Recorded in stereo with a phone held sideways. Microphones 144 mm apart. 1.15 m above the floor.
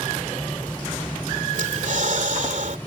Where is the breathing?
60° right (ahead or behind).